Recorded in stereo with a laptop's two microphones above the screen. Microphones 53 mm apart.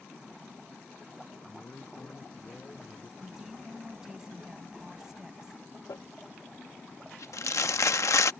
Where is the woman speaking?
10° right (ahead or behind).